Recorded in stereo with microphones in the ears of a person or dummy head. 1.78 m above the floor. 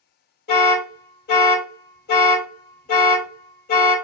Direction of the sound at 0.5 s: 60° left (ahead or behind).